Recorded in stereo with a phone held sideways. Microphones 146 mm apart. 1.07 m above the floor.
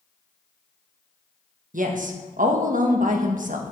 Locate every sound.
1.7 s a woman speaking: 65° right (ahead or behind), 1.3 m